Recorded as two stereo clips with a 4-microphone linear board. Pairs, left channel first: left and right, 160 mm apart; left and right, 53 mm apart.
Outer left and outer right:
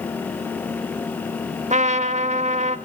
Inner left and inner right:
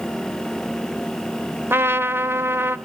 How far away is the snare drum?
No snare drum in this recording.